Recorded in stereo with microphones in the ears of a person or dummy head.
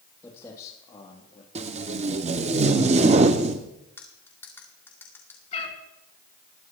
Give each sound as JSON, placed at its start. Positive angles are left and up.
{"t": 0.2, "sound": "footsteps", "side_deg": 15, "distance_m": 3.0}
{"t": 1.6, "sound": "tape being pulled", "side_deg": -35, "distance_m": 0.7}
{"t": 4.0, "sound": "cutlery clinking", "side_deg": 15, "distance_m": 1.8}
{"t": 5.5, "sound": "a cat meowing", "side_deg": 40, "distance_m": 2.5}